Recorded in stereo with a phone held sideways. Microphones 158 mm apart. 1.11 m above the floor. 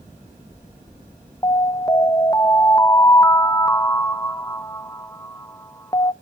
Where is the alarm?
20° left (ahead or behind), 0.6 m.